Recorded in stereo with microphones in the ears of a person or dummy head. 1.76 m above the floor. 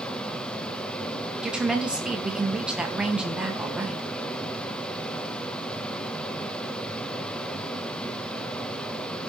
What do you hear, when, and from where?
0.0 s a fan: 5° left (ahead or behind), 0.9 m
1.4 s a woman speaking: 5° right (ahead or behind), 1.8 m